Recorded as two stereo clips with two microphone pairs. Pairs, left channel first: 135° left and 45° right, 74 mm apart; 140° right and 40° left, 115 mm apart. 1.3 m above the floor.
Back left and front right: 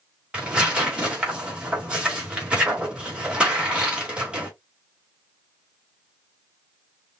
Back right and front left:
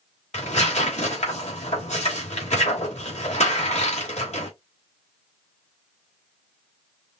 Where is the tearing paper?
125° right, 2.5 m.